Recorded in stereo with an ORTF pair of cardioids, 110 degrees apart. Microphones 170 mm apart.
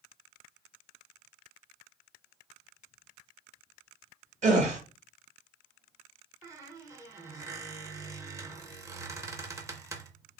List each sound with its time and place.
4.4 s a gasp: 45° right, 1.2 m
6.4 s a squeak: 20° right, 0.6 m